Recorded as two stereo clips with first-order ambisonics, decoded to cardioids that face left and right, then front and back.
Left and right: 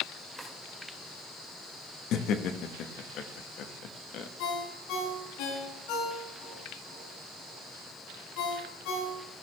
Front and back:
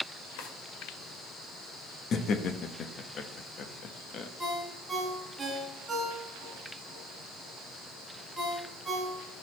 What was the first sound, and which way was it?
A drawer, 5° left.